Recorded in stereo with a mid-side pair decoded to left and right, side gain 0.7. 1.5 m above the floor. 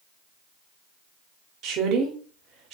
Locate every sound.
1.6 s a woman speaking: 50° right, 0.8 m